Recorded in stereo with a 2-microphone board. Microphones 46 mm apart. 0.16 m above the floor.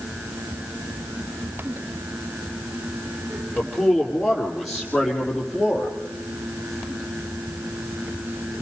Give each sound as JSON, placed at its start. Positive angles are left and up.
{"t": 3.6, "sound": "a man speaking", "side_deg": 10, "distance_m": 5.5}